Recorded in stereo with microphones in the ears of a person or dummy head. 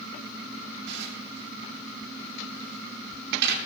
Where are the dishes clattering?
65° right (ahead or behind), 3 m.